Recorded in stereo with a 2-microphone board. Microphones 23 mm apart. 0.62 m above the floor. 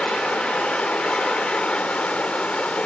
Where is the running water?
80° left, 0.8 m.